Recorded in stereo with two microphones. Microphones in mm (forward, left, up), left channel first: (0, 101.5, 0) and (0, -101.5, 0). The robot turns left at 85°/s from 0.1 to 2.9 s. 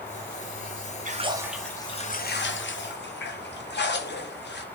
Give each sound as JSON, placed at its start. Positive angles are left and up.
{"t": 1.1, "sound": "a splash", "azimuth_deg": -135, "distance_m": 0.6}